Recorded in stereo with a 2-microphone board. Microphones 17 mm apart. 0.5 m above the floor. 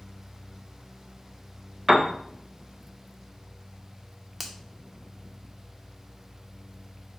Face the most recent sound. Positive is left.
turn(degrees=-5)  # may be behind; listen again after turning